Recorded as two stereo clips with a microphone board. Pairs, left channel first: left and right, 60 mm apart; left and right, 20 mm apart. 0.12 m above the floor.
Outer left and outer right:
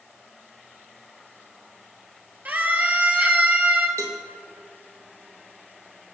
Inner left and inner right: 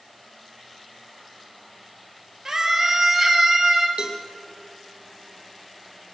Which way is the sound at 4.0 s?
60° right (ahead or behind).